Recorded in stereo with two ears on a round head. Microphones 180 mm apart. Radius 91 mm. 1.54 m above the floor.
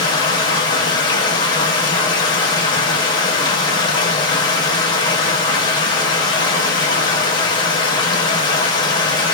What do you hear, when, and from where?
0.0 s running water: 20° left (ahead or behind), 0.9 m